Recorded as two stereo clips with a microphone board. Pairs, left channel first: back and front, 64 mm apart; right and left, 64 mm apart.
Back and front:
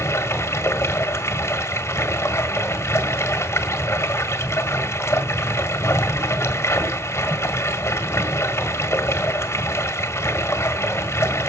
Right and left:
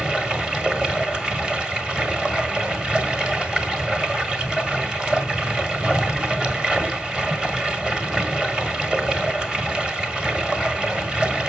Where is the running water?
165° left, 1.5 m.